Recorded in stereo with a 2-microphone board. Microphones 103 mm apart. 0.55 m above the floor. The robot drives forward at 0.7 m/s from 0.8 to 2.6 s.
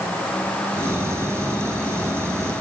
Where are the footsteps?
I don't hear footsteps.